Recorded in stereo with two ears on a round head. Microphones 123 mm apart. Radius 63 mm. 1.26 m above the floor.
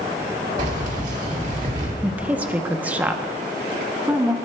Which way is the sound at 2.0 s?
10° right (ahead or behind).